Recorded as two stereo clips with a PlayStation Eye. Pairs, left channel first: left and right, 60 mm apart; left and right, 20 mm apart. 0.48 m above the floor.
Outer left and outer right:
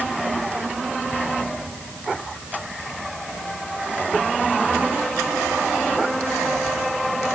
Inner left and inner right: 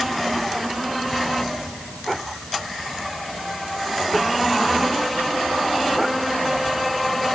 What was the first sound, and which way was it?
Only background noise.